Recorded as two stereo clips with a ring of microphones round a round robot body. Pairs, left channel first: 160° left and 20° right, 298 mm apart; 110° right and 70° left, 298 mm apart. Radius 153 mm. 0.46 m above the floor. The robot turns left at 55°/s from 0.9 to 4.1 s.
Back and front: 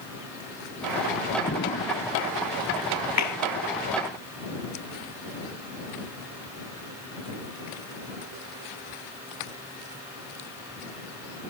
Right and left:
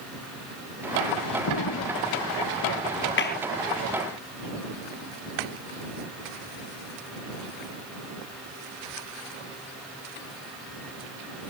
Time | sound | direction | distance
1.5 | an explosion | 140° right | ?
3.2 | a clap | 165° right | ?